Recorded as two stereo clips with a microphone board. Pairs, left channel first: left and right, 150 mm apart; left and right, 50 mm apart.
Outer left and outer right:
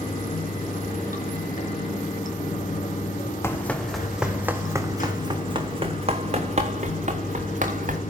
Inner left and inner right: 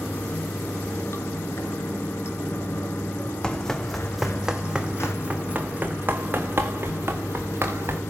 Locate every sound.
0.0 s running water: 60° left (ahead or behind), 4 m
3.4 s running footsteps: 15° left (ahead or behind), 1.1 m; by 8.0 s 55° right (ahead or behind), 2.5 m